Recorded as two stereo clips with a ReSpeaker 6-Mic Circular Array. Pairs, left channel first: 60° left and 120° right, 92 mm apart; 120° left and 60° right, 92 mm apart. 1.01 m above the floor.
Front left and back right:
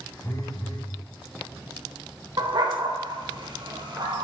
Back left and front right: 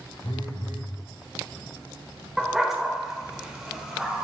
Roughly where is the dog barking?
Behind right.